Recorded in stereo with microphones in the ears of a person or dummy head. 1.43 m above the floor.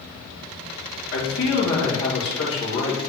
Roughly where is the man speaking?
Left.